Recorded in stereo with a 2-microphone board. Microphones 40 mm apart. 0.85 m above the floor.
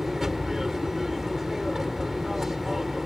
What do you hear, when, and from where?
0.0 s an aircraft: 10° right (ahead or behind)